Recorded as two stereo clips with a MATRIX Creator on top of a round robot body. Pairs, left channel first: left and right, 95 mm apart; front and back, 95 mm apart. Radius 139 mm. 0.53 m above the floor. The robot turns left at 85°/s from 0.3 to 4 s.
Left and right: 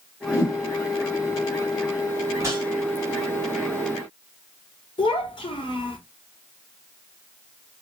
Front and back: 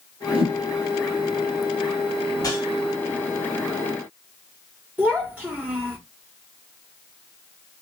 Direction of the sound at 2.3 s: 30° right.